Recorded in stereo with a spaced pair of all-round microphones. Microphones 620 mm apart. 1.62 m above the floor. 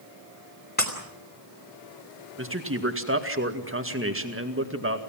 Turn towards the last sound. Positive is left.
turn(degrees=-20)  # may be behind; listen again after turning